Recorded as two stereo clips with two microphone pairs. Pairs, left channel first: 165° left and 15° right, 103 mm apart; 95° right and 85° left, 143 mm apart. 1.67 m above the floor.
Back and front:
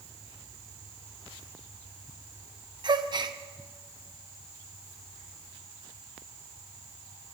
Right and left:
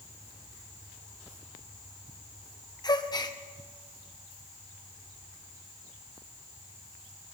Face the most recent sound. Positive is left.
turn(degrees=-40)